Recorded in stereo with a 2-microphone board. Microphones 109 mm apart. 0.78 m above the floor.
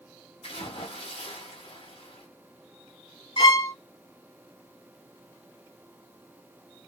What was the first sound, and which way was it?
A splash, 60° left (ahead or behind).